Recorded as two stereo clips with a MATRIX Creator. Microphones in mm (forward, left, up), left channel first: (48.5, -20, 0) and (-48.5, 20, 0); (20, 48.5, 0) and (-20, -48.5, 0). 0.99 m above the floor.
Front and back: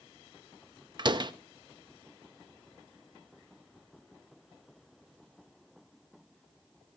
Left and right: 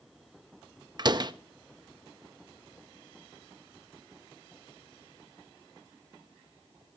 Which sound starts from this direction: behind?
A door slam, at 1.0 s.